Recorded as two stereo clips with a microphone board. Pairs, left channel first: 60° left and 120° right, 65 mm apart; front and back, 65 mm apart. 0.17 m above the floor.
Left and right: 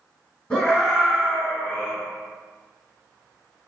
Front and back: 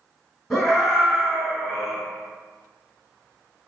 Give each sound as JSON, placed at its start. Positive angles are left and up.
{"t": 0.5, "sound": "a scream", "azimuth_deg": 100, "distance_m": 1.5}